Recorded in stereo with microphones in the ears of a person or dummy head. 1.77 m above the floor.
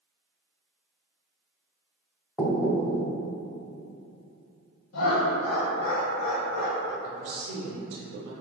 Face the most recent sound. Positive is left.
turn(degrees=-80)